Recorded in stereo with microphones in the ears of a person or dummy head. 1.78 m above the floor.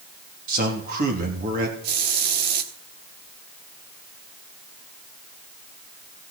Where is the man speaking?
50° right (ahead or behind), 3 m.